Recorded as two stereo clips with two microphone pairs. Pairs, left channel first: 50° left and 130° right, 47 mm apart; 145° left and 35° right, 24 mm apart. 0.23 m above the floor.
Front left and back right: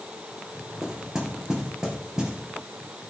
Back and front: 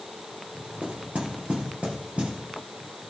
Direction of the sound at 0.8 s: 55° right.